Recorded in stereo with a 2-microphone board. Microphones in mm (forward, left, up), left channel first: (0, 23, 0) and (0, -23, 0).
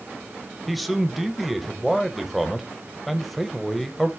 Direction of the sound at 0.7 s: Centre (ahead or behind).